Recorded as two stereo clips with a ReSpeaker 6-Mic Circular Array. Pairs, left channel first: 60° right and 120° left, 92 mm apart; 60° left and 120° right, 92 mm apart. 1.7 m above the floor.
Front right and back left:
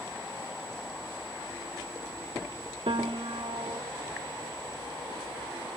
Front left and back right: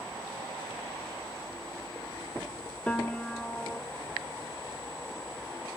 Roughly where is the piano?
Behind left.